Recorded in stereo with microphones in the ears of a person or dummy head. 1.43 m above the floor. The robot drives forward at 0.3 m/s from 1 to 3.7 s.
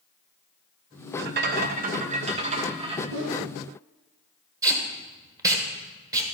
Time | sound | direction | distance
1.2 | a rattle | 55° right (ahead or behind) | 0.5 m
3.1 | a whoosh | 75° right (ahead or behind) | 1.5 m
4.6 | tape being pulled | 20° right (ahead or behind) | 1.2 m